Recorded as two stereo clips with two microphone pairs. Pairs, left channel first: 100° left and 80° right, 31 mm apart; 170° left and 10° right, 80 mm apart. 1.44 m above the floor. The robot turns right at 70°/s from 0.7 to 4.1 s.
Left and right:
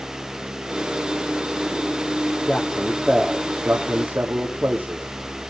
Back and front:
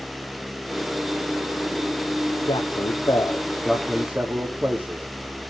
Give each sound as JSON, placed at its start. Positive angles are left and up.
{"t": 2.5, "sound": "a man speaking", "azimuth_deg": 170, "distance_m": 3.5}